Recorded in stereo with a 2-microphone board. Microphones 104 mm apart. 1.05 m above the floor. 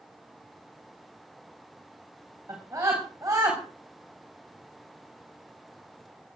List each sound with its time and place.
2.5 s a scream: 30° right (ahead or behind), 5.5 m